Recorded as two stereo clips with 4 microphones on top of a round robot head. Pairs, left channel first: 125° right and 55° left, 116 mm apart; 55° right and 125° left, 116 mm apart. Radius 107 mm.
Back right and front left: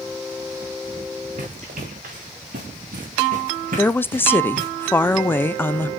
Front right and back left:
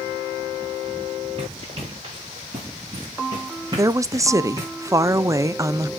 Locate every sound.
1.4 s running footsteps: 75° left, 5.5 m; by 4.7 s 55° left, 4 m
3.8 s a woman speaking: 175° left, 0.8 m